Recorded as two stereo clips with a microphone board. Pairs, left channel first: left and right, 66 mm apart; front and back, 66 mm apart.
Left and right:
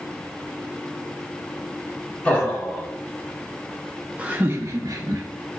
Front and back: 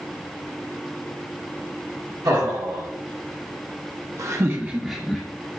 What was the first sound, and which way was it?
Laughter, 160° left.